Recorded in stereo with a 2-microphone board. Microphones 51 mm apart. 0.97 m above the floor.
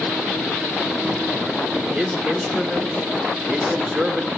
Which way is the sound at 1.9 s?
20° right (ahead or behind).